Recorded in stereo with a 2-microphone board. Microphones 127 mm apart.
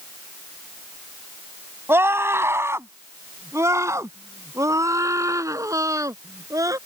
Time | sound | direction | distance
1.9 | a scream | 15° right (ahead or behind) | ?